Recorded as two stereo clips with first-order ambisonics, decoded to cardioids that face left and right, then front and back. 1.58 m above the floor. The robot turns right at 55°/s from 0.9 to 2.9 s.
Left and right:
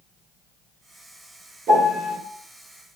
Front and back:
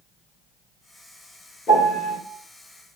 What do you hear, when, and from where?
1.7 s a piano: 55° right, 1.0 m; by 2.2 s 25° right, 1.0 m